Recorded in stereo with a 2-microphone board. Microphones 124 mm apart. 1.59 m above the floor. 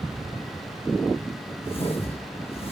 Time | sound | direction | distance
1.6 | a whoosh | 50° left (ahead or behind) | 5.5 m